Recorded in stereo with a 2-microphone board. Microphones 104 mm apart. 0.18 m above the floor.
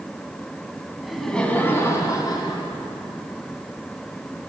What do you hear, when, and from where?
1.0 s laughter: 5° right (ahead or behind), 1.2 m; by 2.6 s 45° left (ahead or behind), 1.8 m